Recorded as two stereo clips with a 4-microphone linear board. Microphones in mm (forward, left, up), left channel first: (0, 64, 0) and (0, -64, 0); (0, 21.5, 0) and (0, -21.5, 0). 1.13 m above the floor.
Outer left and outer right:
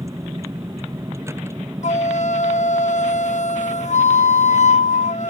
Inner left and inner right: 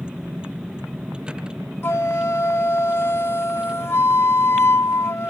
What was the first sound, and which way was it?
A vehicle, 20° right (ahead or behind).